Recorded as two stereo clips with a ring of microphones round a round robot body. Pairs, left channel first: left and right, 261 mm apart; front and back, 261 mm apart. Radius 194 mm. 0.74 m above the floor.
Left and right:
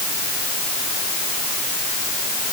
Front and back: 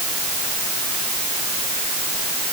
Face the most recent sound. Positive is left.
No sound to turn to.